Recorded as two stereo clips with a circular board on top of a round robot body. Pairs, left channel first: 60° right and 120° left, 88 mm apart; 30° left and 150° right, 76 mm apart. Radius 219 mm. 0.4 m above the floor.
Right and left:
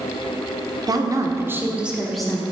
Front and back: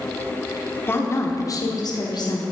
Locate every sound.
0.9 s a woman speaking: 85° left, 1.3 m; by 2.4 s 20° left, 1.4 m